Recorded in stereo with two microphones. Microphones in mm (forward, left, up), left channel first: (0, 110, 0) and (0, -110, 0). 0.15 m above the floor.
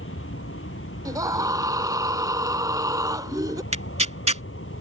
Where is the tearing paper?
30° right (ahead or behind).